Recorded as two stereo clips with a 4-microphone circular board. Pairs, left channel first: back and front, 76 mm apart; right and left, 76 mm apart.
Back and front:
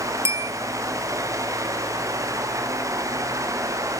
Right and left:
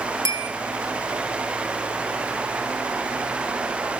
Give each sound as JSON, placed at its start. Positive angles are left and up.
{"t": 0.2, "sound": "a bell", "azimuth_deg": 50, "distance_m": 3.0}